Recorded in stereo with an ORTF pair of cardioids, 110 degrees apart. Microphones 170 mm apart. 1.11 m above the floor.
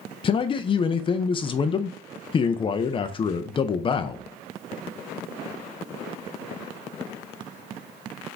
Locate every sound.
0.2 s a man speaking: 30° left, 0.5 m